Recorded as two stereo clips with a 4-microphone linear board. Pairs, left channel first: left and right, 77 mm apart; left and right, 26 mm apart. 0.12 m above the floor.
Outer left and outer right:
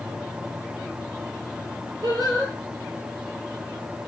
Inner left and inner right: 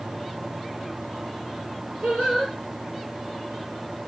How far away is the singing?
About 1.3 m.